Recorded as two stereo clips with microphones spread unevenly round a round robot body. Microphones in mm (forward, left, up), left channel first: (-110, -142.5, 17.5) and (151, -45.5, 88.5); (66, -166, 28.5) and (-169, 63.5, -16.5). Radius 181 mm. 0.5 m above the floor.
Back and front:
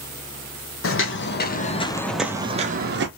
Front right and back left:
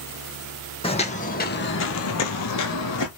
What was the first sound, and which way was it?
Footsteps, 115° right.